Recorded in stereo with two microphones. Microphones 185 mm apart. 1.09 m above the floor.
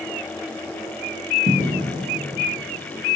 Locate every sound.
1.5 s footsteps: 65° right (ahead or behind), 2.5 m